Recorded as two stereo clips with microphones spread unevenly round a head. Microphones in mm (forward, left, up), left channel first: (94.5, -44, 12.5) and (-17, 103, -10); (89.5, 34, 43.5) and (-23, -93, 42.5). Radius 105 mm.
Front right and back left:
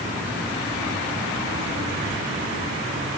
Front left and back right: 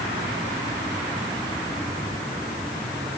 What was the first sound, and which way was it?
Only background noise.